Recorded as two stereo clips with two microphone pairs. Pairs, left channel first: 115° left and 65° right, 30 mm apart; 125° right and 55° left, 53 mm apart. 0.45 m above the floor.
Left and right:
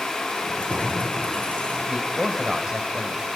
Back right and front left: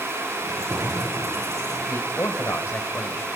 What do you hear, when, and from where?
0.4 s keys jangling: 75° left, 8.5 m; by 1.8 s 70° left, 7.5 m
1.9 s a man speaking: 125° right, 2.0 m